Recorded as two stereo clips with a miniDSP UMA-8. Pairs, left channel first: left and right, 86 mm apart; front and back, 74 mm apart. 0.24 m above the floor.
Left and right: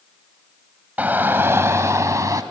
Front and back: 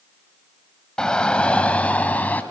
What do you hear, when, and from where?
1.0 s a shout: 60° right, 1.1 m